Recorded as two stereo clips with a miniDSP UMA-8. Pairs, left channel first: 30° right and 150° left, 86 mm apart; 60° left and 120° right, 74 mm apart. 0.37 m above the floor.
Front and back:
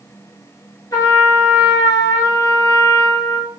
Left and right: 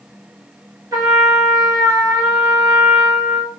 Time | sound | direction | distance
0.9 | a trumpet | 80° right | 1.5 m